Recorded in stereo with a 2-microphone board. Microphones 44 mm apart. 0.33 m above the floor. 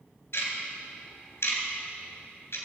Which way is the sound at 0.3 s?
65° left (ahead or behind).